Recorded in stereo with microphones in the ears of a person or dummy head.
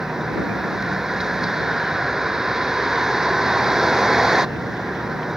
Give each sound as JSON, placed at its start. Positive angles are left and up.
{"t": 0.0, "sound": "a vehicle", "side_deg": 0}